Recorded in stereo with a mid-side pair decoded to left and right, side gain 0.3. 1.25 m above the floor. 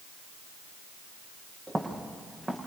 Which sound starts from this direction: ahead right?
Footsteps, at 1.7 s.